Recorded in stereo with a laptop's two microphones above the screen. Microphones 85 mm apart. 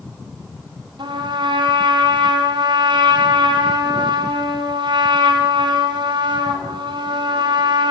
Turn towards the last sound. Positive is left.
turn(degrees=-65)  # may be behind; listen again after turning